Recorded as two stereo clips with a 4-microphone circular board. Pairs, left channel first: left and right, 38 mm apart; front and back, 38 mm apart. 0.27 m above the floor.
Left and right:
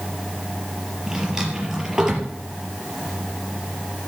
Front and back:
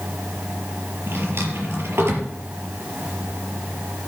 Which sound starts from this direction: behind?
A drawer, at 1.1 s.